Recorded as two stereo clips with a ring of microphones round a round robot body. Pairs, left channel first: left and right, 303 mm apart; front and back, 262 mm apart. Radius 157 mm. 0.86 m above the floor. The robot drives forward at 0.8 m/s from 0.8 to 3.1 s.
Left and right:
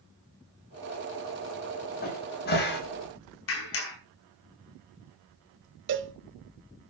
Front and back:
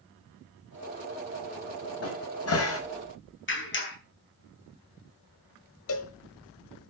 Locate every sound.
2.0 s a cupboard door: 30° left, 5.5 m; by 2.8 s 35° left, 5 m
3.5 s a clap: 45° left, 5.5 m
5.9 s a cowbell: 45° right, 1.0 m